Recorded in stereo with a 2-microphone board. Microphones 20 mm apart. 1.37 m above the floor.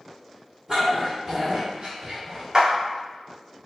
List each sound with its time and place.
0.7 s a dog barking: 5° right (ahead or behind), 1.6 m; by 2.4 s 45° right (ahead or behind), 1.6 m
2.5 s a clap: 35° right (ahead or behind), 0.8 m